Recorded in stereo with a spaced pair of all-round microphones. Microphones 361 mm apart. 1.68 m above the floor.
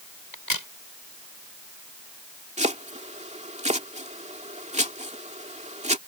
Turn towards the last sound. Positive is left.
turn(degrees=-20)  # may be behind; listen again after turning